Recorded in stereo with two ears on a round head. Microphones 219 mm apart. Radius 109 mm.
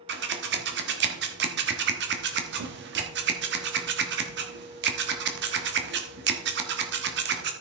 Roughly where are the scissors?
Right.